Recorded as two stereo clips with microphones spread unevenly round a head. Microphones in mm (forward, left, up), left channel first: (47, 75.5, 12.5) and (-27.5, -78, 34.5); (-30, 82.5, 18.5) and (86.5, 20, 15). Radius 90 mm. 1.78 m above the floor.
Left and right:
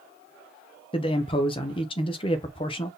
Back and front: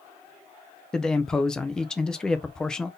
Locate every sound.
0.9 s a man speaking: 80° left, 0.6 m